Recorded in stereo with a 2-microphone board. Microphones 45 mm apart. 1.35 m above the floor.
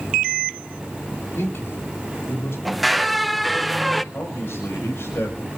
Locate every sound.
1.4 s a man speaking: 70° left (ahead or behind), 3.5 m
2.6 s a squeak: centre (ahead or behind), 0.6 m
4.1 s a man speaking: 70° left (ahead or behind), 5.5 m